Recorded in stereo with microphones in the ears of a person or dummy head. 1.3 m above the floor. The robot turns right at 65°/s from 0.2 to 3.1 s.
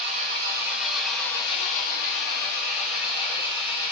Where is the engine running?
45° right, 0.9 m; by 3.9 s 145° left, 0.9 m.